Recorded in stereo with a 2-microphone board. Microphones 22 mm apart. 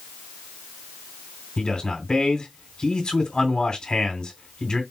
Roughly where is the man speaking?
Left.